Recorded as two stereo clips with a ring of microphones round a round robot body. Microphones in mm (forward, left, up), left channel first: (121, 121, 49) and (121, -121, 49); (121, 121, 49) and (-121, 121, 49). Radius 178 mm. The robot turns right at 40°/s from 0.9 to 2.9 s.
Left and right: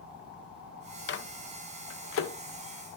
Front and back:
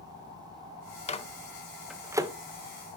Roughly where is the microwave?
Ahead left.